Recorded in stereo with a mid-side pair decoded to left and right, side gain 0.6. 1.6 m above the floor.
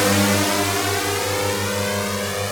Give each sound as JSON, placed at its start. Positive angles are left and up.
{"t": 0.0, "sound": "a drone", "azimuth_deg": 5}